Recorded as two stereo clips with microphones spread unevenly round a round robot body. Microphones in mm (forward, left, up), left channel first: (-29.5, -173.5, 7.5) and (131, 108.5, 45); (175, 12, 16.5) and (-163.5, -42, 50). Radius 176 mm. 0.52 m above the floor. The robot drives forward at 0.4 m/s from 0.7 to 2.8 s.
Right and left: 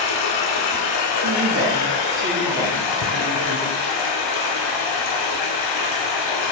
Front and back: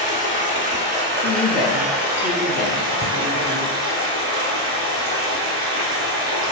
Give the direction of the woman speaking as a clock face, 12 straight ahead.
10 o'clock.